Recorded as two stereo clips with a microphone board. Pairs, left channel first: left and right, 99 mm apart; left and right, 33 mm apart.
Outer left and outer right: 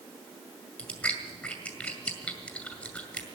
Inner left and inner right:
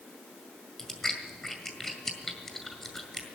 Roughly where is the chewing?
Centre.